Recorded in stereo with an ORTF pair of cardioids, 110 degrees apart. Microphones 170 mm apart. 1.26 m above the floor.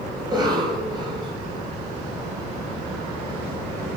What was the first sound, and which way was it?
A cough, 25° right.